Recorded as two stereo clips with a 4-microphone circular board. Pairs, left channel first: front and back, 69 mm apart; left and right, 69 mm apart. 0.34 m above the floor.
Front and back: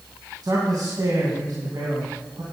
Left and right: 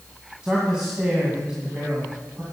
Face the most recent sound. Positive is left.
turn(degrees=-165)